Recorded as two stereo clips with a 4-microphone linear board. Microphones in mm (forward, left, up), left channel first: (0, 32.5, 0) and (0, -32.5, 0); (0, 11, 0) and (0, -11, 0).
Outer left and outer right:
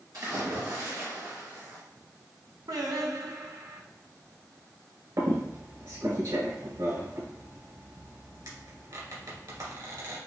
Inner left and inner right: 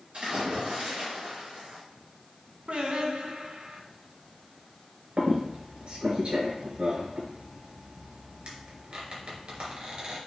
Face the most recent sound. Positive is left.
turn(degrees=-65)  # may be behind; listen again after turning